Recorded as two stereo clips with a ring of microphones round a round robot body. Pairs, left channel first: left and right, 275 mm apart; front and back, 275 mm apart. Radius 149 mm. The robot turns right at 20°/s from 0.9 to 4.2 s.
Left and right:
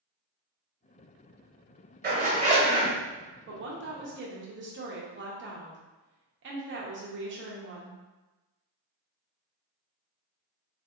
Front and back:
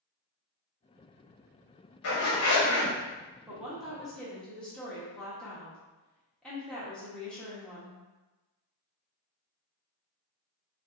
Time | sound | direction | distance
2.0 | a zipper | 35° right | 1.2 m
3.5 | a woman speaking | 100° right | 0.8 m